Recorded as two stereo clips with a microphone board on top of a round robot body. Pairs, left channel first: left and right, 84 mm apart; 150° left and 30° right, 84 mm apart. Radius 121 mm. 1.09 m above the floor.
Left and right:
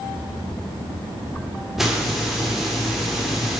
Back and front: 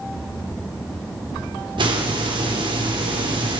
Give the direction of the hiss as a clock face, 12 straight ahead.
12 o'clock.